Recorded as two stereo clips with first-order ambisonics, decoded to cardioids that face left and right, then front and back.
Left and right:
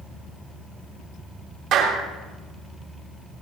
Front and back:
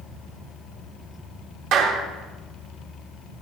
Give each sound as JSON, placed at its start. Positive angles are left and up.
{"t": 1.7, "sound": "a clap", "azimuth_deg": -140, "distance_m": 3.0}